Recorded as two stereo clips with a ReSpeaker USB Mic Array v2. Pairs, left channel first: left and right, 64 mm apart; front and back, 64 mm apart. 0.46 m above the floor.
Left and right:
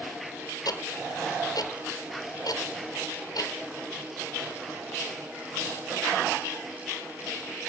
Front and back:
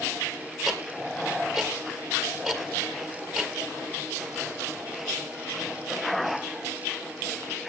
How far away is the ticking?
About 1.6 m.